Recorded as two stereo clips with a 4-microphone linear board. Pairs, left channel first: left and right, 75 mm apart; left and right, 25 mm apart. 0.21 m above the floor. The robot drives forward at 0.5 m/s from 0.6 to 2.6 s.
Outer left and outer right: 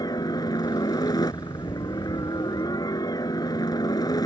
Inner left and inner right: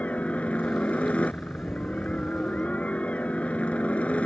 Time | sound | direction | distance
0.0 | a helicopter | 60° left (ahead or behind) | ?